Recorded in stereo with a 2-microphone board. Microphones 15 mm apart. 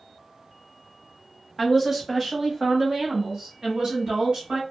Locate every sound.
1.6 s a woman speaking: 5° right (ahead or behind), 1.0 m; by 4.6 s 50° right (ahead or behind), 1.8 m